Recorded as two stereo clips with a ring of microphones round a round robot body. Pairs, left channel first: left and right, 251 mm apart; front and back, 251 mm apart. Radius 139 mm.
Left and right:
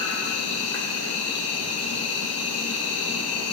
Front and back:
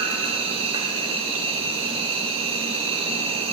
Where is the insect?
110° left, 2.0 m.